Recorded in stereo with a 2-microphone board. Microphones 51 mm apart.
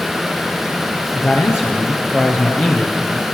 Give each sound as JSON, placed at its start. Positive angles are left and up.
{"t": 1.1, "sound": "a man speaking", "side_deg": 45, "distance_m": 4.0}